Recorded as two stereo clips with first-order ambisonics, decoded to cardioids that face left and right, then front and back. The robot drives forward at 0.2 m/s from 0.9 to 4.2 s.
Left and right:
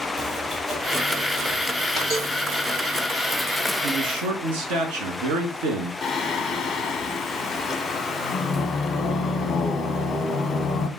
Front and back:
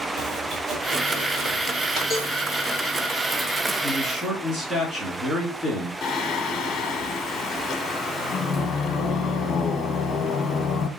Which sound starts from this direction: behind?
Chopping, at 0.2 s.